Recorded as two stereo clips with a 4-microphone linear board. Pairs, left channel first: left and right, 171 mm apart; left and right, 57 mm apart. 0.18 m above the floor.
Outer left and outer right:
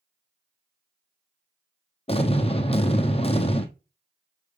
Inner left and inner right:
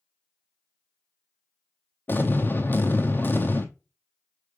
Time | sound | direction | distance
2.1 | an explosion | 35° left (ahead or behind) | 1.1 m